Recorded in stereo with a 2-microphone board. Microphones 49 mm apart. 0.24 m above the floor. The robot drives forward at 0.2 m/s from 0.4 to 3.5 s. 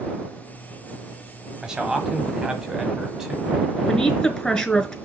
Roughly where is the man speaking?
Centre.